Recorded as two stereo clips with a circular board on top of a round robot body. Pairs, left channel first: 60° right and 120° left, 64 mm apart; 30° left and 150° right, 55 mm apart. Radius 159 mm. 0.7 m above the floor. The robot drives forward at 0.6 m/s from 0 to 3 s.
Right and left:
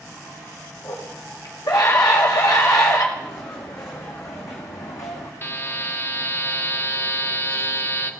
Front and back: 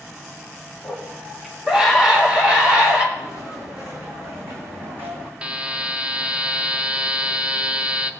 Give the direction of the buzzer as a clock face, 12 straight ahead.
3 o'clock.